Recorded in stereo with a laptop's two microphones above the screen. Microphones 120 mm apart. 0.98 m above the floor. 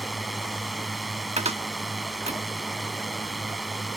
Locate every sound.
0.0 s a drone: centre (ahead or behind)
1.4 s a cupboard door: 65° right (ahead or behind)